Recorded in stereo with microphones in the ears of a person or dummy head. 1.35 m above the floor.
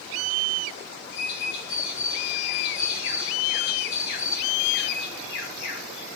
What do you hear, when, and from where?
1.1 s a bird: 65° left (ahead or behind), 1.8 m